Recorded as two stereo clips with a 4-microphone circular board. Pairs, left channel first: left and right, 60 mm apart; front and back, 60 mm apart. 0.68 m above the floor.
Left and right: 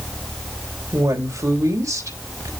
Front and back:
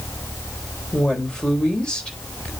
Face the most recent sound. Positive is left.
turn(degrees=-75)